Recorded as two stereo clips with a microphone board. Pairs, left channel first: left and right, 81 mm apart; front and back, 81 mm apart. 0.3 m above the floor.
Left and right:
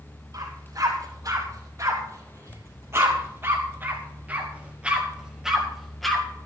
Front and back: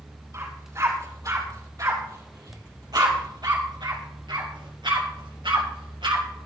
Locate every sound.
0.3 s a dog barking: 130° right, 4.5 m; by 6.2 s 175° left, 2.5 m